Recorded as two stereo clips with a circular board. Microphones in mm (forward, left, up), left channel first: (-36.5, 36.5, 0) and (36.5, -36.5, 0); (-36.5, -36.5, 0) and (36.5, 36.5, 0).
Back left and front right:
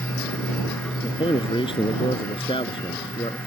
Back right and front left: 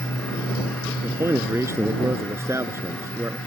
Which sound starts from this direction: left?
A man speaking, at 1.0 s.